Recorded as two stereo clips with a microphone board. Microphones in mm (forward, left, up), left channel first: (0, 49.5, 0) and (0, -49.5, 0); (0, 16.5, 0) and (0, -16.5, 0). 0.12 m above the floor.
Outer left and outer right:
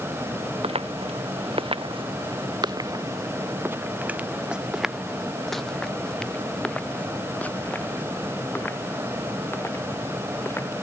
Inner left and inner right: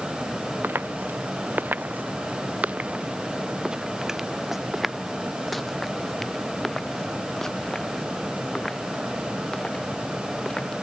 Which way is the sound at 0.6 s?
90° right.